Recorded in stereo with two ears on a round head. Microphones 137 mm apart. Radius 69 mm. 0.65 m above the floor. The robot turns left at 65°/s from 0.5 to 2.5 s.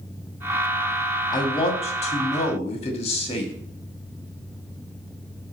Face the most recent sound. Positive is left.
turn(degrees=65)